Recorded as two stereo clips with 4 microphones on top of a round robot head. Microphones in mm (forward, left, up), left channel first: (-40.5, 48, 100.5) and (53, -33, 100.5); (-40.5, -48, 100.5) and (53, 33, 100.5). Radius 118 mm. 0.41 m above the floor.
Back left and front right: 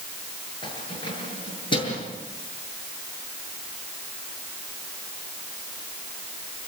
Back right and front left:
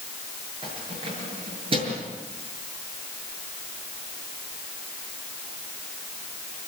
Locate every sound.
0.6 s keys jangling: 90° left, 7 m